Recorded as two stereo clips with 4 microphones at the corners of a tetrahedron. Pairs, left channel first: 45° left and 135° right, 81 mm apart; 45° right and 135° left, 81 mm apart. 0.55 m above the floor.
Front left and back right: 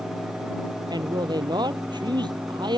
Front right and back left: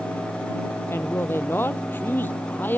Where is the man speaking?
105° right; by 2.8 s 110° right.